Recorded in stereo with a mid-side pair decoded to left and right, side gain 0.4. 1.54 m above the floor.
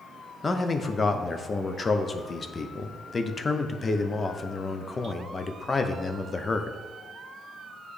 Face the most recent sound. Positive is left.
turn(degrees=35)